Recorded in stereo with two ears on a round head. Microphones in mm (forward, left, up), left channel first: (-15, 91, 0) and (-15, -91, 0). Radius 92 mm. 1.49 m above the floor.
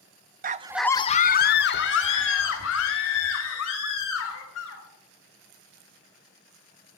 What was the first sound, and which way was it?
A scream, 40° right (ahead or behind).